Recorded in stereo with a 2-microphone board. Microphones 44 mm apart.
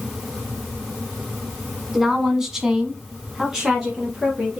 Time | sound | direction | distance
1.9 | a woman speaking | 10° right (ahead or behind) | 1.3 m